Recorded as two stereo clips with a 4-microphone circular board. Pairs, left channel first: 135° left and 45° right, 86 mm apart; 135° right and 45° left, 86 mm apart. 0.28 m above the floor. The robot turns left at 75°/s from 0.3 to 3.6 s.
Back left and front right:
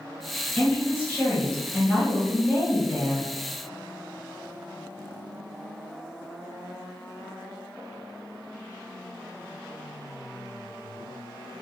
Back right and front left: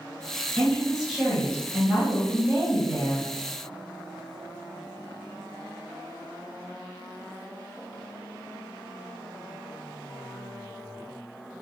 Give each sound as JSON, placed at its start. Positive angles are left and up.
{"t": 0.6, "sound": "a woman speaking", "azimuth_deg": 165, "distance_m": 1.6}